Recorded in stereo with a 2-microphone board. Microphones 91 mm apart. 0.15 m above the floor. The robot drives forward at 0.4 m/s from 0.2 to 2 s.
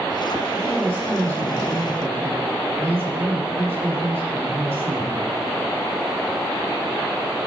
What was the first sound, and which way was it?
A woman speaking, 25° right (ahead or behind).